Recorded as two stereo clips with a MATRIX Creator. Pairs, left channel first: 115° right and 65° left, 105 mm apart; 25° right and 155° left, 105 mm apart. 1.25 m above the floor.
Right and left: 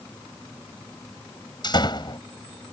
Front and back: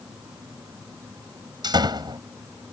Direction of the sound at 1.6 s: 155° right.